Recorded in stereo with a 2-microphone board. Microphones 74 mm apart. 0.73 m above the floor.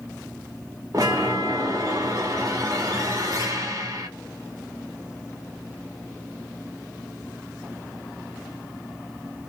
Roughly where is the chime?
Right.